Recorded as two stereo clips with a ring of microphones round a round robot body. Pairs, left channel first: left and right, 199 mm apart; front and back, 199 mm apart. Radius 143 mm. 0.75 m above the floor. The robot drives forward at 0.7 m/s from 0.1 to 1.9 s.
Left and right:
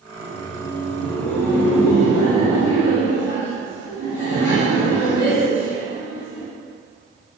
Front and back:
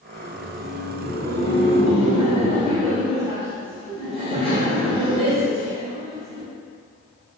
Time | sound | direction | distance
0.1 | laughter | 75° left | 1.8 m